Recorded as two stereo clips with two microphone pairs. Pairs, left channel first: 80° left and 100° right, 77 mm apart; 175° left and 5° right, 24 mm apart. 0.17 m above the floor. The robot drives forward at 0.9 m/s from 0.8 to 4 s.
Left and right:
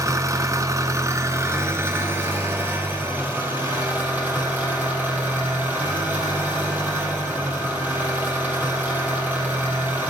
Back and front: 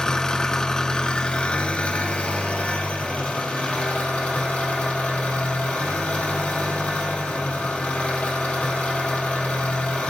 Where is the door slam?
I don't hear a door slam.